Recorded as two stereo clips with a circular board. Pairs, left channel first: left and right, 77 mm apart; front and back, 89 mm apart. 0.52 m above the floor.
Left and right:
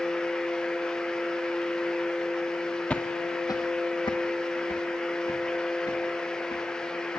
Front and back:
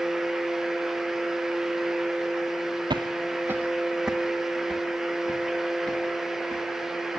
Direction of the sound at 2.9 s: 165° left.